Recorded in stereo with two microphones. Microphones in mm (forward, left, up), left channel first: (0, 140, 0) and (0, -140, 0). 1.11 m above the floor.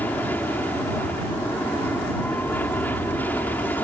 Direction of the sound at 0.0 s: 5° left (ahead or behind).